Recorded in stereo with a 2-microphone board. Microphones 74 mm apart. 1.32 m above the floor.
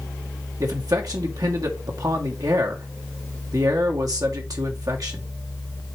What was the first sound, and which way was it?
A man speaking, 55° right (ahead or behind).